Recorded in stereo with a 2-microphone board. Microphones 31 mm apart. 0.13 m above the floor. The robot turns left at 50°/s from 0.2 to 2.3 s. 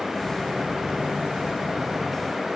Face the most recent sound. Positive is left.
No sound to turn to.